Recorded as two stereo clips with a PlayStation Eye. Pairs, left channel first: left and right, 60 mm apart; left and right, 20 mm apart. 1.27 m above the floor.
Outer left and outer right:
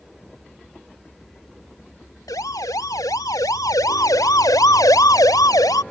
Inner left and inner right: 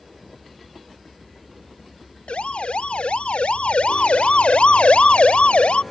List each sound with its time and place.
2.3 s a siren: 80° left